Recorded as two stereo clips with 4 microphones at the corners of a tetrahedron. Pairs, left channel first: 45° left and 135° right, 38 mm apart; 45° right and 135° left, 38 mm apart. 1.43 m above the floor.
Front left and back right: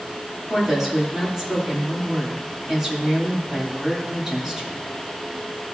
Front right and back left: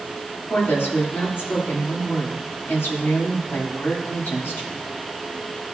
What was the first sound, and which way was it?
A woman speaking, 55° right.